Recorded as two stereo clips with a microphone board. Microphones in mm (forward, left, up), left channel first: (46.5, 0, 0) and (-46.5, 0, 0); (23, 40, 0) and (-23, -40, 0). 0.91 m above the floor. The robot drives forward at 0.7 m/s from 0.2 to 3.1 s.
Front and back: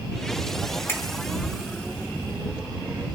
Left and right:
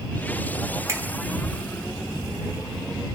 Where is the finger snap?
60° right, 2.5 m; by 1.0 s 65° right, 2.5 m.